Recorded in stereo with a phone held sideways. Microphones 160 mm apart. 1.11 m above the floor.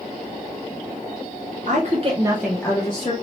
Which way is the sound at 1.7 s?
55° right (ahead or behind).